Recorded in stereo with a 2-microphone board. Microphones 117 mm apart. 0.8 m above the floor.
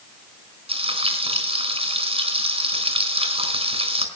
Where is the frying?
55° right (ahead or behind), 4 m.